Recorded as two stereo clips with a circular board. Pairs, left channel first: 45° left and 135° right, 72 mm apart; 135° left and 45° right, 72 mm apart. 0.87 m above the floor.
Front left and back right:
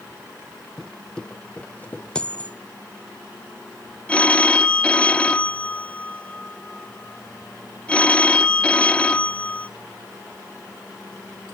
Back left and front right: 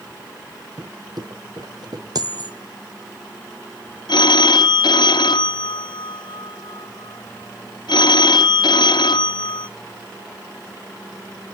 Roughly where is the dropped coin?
Ahead right.